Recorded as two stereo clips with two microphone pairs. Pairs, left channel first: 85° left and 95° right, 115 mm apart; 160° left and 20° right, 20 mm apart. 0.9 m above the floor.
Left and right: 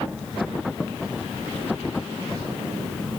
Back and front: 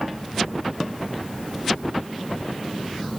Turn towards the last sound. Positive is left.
No sound to turn to.